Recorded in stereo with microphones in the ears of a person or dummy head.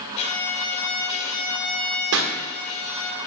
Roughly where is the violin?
Left.